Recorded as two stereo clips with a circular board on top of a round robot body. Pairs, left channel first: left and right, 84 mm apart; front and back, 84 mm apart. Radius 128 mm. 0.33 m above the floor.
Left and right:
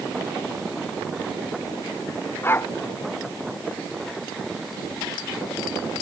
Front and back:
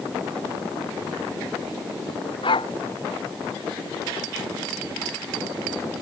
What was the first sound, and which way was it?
A dog barking, 25° left.